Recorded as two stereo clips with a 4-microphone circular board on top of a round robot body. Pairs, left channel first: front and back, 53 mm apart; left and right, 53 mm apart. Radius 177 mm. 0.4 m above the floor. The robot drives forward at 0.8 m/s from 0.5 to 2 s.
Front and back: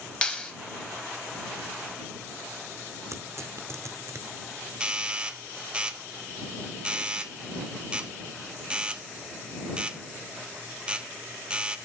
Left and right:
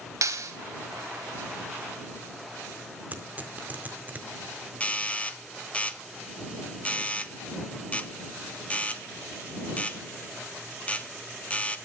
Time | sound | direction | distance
0.2 | a clap | 70° right | 2.5 m
3.1 | tearing paper | 150° right | 1.7 m
4.8 | a doorbell | 130° left | 1.3 m